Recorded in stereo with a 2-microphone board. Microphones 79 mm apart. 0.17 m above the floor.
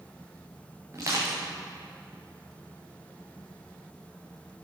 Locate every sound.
0.9 s crushing: 40° right (ahead or behind), 3.5 m